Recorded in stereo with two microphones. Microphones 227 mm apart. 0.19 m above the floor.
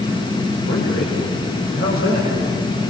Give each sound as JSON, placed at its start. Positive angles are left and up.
{"t": 0.7, "sound": "a man speaking", "side_deg": 50, "distance_m": 8.0}